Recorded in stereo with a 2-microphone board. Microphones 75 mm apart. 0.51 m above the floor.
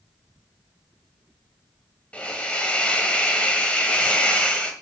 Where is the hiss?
20° left (ahead or behind), 1.8 m.